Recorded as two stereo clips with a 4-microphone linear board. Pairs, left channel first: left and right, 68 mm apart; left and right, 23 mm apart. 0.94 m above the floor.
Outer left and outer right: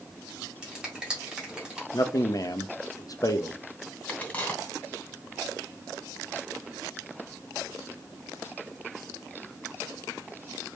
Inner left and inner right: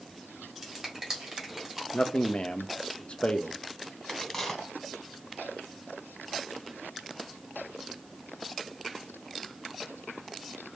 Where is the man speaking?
55° left (ahead or behind), 0.6 m.